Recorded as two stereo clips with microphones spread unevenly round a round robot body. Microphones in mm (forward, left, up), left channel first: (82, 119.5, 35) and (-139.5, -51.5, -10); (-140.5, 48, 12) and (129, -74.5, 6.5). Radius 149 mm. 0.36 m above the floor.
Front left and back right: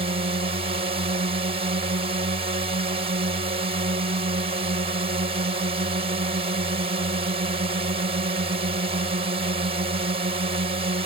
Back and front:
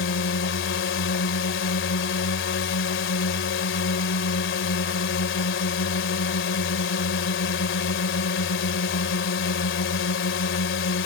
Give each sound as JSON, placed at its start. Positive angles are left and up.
{"t": 0.0, "sound": "a drone", "azimuth_deg": 175}